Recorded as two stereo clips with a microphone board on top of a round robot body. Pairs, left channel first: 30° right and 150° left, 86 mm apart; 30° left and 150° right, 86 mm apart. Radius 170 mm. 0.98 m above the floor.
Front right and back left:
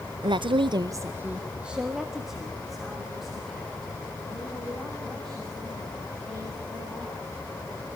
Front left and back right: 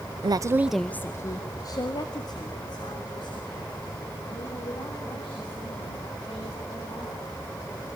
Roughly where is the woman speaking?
Behind.